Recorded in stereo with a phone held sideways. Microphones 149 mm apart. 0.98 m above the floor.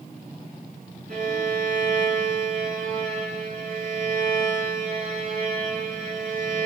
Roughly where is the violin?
Right.